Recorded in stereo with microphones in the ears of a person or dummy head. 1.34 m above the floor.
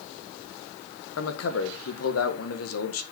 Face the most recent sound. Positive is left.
turn(degrees=75)  # may be behind; listen again after turning